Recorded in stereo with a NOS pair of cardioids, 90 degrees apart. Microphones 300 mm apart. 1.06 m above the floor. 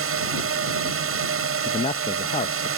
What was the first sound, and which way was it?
A drone, 45° right.